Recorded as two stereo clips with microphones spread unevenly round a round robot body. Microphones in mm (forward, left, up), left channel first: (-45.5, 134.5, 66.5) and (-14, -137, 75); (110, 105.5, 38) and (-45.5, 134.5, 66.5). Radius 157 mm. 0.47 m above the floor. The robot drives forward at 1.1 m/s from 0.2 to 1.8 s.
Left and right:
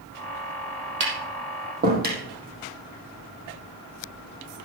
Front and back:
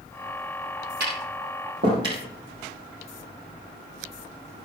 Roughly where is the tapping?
Behind right.